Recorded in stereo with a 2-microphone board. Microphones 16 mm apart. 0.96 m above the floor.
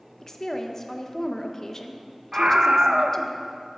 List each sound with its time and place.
0.2 s a woman speaking: 40° left (ahead or behind), 0.9 m
2.3 s a scream: 50° right (ahead or behind), 0.7 m